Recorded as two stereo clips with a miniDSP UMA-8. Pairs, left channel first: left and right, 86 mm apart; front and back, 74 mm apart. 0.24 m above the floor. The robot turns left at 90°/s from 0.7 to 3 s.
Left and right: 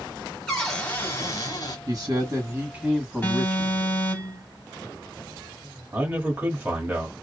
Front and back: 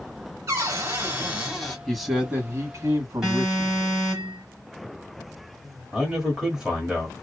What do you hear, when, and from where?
0.5 s a cupboard door: 170° left, 1.2 m; by 1.8 s 75° left, 1.2 m
1.9 s a man speaking: 75° right, 1.3 m; by 4.2 s straight behind, 1.3 m
3.2 s an alarm: 105° left, 2 m
5.9 s a man speaking: 110° right, 1.5 m